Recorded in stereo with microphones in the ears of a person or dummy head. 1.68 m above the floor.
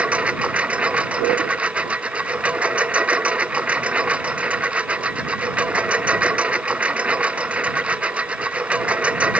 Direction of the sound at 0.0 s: 10° right (ahead or behind).